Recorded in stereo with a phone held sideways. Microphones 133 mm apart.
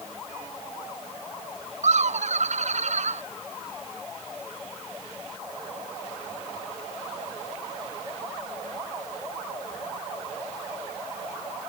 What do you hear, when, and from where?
1.8 s laughter: 65° right (ahead or behind)